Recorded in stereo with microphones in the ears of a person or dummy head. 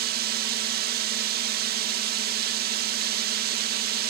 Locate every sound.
0.0 s a drone: 50° right (ahead or behind)